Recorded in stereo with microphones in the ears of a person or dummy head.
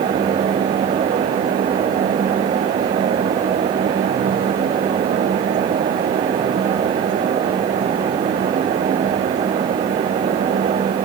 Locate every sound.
Only background noise.